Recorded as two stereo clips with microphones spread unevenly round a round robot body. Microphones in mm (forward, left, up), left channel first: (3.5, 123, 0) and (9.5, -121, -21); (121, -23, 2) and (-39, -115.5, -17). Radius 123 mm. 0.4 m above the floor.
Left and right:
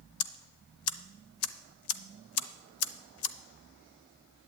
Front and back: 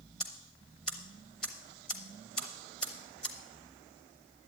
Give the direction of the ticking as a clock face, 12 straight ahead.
8 o'clock.